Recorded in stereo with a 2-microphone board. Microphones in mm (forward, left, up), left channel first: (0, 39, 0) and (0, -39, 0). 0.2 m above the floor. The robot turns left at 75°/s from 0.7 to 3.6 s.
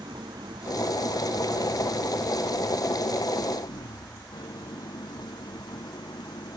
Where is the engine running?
80° right; by 6.6 s 65° left.